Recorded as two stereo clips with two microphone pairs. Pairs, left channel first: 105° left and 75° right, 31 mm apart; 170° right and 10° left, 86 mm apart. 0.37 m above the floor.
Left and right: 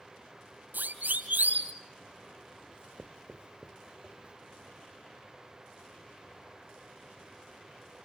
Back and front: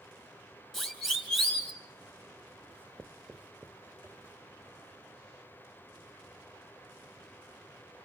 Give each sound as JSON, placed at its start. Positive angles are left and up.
{"t": 0.7, "sound": "a siren", "azimuth_deg": -85, "distance_m": 3.0}
{"t": 2.7, "sound": "writing", "azimuth_deg": -50, "distance_m": 0.6}